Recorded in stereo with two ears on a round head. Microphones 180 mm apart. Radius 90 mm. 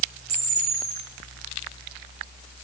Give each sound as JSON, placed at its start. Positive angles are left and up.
{"t": 0.3, "sound": "a camera shutter", "side_deg": -75, "distance_m": 8.5}